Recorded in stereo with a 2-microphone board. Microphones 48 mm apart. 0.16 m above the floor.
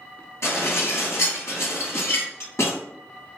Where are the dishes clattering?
65° left (ahead or behind), 1.9 m.